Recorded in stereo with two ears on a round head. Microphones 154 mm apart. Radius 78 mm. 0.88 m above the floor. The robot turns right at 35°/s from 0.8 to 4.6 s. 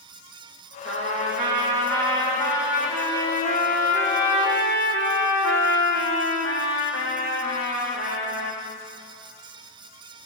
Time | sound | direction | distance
0.8 | a trumpet | 65° right | 8.5 m